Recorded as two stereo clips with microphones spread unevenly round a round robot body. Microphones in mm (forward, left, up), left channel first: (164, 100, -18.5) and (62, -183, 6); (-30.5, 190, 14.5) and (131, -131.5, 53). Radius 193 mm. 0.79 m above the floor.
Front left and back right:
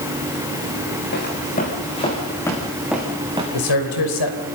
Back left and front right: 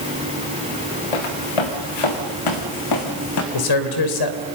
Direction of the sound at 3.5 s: 95° left.